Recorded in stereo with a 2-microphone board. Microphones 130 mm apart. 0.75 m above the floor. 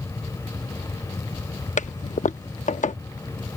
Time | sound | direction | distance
1.8 | a toilet flushing | 70° left (ahead or behind) | ?